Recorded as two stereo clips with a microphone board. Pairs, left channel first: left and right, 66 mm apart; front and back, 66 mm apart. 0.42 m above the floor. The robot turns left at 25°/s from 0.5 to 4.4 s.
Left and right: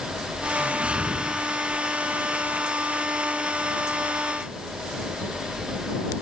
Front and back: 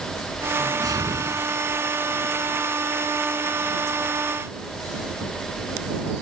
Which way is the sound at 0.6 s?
155° right.